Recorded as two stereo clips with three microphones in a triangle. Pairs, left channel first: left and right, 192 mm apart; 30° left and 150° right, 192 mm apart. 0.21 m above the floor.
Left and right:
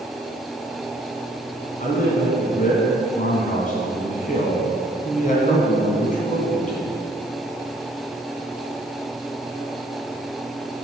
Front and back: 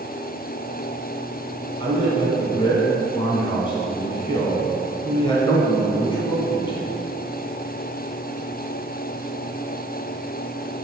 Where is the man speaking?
80° left, 2 m.